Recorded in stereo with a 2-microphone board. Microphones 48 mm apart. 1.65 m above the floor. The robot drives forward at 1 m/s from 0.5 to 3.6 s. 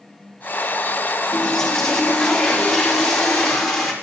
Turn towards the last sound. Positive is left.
turn(degrees=5)  # may be behind; listen again after turning